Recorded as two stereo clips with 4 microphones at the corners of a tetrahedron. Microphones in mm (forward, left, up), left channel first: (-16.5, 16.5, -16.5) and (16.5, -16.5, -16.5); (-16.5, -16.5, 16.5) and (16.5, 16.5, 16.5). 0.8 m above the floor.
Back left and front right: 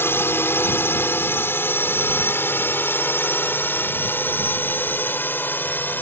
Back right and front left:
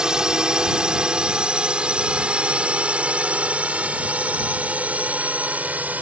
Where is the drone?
115° left; by 6.0 s 95° left.